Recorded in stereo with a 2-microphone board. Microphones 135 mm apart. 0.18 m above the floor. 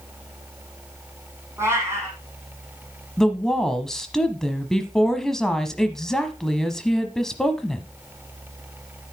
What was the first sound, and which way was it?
A cat meowing, 15° right (ahead or behind).